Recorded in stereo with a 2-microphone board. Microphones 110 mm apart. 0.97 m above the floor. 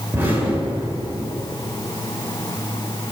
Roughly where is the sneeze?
No sneeze in this recording.